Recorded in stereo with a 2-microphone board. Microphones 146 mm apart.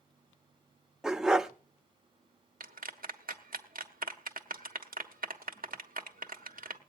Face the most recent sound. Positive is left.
turn(degrees=-75)  # may be behind; listen again after turning